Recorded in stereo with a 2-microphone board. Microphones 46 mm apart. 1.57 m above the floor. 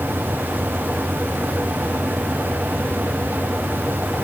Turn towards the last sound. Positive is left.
No sound to turn to.